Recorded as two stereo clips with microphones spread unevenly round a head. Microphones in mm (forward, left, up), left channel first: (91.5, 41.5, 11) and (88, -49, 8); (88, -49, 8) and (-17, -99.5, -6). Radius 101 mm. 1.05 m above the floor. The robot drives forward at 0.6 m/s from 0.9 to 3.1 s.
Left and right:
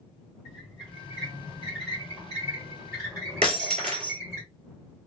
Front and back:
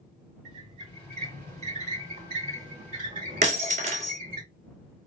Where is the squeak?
170° right, 2 m; by 4.4 s 175° right, 3.5 m.